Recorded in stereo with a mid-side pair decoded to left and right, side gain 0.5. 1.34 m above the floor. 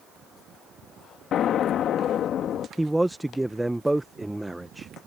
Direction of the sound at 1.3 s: 60° left.